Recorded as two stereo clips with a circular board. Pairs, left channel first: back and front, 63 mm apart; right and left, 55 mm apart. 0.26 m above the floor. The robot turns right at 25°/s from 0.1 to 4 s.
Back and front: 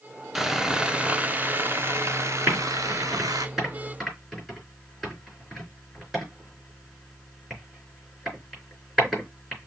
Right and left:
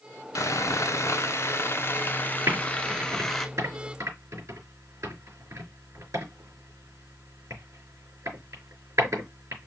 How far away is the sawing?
About 0.9 m.